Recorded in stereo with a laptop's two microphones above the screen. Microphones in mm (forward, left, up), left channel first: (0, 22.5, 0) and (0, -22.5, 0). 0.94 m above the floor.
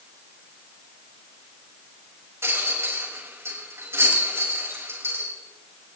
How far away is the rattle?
About 6 m.